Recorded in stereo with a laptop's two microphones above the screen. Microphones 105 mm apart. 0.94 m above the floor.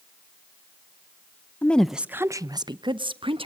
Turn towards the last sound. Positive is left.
turn(degrees=-60)  # may be behind; listen again after turning